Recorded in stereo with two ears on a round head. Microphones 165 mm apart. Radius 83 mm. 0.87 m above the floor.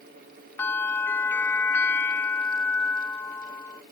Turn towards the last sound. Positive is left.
turn(degrees=10)  # may be behind; listen again after turning